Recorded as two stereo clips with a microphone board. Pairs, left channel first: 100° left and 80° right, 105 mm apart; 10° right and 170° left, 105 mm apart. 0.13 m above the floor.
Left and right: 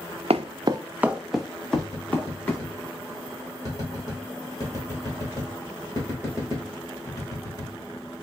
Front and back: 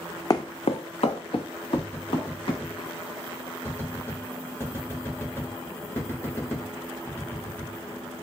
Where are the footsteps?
70° right, 0.5 m; by 2.6 s 25° left, 2 m.